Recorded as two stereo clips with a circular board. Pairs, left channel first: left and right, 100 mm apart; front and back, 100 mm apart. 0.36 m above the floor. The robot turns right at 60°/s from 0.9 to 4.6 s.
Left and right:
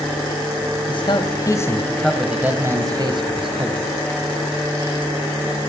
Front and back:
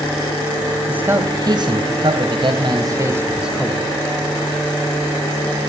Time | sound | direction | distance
0.9 | a man speaking | 105° left | 2.5 m